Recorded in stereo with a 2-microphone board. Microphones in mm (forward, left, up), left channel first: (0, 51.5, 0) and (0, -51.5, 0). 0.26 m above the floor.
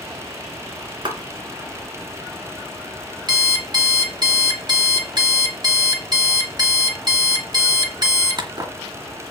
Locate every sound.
1.1 s a clap: 50° right (ahead or behind), 2.5 m
3.3 s an alarm clock: 45° right (ahead or behind), 1.9 m